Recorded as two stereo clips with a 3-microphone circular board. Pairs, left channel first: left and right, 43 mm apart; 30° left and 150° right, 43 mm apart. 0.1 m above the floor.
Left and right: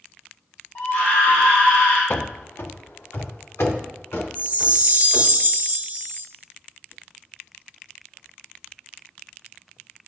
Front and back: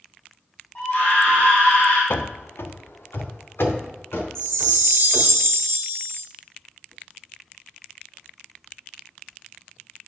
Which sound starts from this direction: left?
A scream, at 0.8 s.